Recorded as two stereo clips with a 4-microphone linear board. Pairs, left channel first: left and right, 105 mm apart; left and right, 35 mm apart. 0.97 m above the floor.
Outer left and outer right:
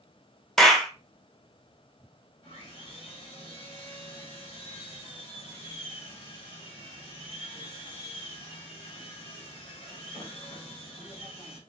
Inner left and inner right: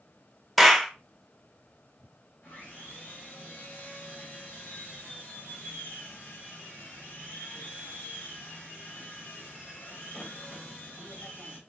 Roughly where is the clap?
Centre.